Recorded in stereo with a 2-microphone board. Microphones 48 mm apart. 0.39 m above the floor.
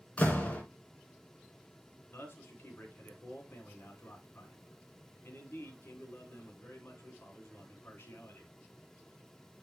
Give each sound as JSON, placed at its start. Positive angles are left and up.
{"t": 0.2, "sound": "a door slam", "side_deg": 25, "distance_m": 3.0}
{"t": 2.1, "sound": "a man speaking", "side_deg": 50, "distance_m": 3.0}